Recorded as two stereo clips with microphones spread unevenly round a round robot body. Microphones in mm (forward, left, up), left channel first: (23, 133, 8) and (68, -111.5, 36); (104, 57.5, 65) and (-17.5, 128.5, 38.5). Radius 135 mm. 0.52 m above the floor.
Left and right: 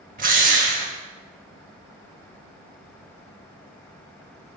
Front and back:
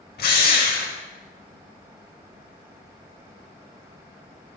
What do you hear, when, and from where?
0.2 s a drill: 20° right, 1.4 m